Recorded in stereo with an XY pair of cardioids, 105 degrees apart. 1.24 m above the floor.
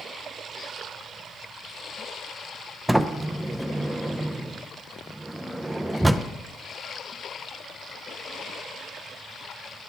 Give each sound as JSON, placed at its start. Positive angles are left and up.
{"t": 2.9, "sound": "a sliding door", "azimuth_deg": -10, "distance_m": 0.5}